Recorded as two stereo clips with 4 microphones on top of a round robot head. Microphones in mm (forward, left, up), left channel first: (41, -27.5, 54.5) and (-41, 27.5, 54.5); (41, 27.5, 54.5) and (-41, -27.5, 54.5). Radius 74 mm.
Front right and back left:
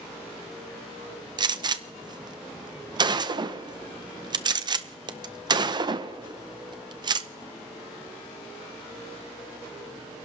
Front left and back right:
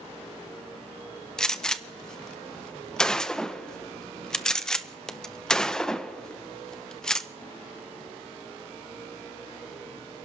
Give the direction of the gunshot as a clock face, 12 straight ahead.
8 o'clock.